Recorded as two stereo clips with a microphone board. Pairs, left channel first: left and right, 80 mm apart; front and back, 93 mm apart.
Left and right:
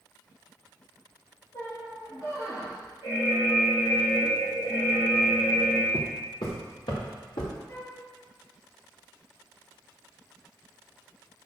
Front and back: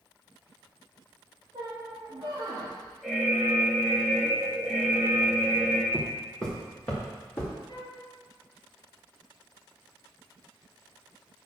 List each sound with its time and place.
1.5 s a squeak: 135° left, 2 m
3.0 s an alarm: 90° left, 2.5 m
5.9 s footsteps: 90° left, 2 m; by 7.5 s 70° left, 3.5 m
7.7 s a flute: 35° left, 3 m